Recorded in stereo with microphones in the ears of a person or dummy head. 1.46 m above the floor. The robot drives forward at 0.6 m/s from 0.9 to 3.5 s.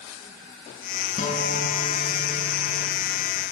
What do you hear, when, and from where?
1.2 s a guitar: 40° left (ahead or behind), 5.5 m; by 3.0 s 45° left (ahead or behind), 4.5 m